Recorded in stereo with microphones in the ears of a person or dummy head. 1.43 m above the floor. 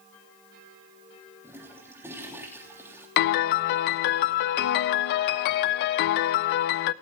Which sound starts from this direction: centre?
A toilet flushing, at 1.4 s.